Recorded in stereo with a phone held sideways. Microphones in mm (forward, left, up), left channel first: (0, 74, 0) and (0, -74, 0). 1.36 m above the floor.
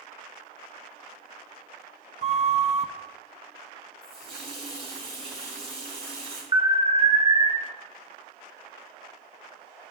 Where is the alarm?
25° right (ahead or behind), 1.2 m.